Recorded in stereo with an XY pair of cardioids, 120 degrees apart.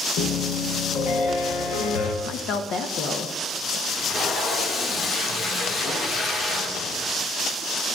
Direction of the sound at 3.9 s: 45° left.